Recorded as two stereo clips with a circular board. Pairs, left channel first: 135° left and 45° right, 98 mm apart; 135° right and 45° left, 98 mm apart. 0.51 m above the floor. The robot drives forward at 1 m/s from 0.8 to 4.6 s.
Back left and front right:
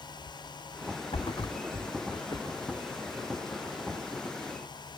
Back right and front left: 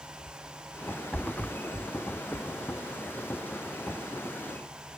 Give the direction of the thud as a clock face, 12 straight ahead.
7 o'clock.